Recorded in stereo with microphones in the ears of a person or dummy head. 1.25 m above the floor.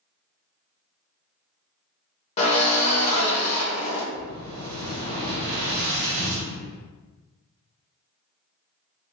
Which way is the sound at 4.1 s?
60° right (ahead or behind).